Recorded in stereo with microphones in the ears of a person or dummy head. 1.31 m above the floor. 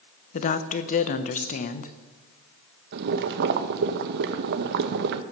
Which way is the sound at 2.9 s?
55° right (ahead or behind).